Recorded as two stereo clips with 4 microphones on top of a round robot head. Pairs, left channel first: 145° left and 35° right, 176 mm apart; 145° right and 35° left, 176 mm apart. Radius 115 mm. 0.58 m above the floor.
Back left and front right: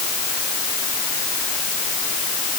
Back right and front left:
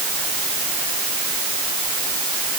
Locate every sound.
Only background noise.